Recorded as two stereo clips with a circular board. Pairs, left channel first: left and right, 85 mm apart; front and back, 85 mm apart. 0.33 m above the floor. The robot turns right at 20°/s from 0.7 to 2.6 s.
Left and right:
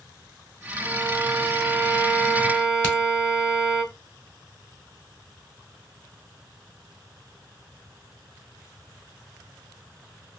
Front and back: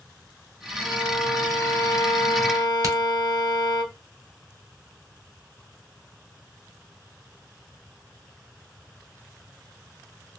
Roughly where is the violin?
Ahead right.